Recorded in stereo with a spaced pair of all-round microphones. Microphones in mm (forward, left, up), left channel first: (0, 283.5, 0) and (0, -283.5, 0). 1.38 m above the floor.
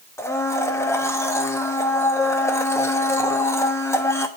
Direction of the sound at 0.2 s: 5° left (ahead or behind).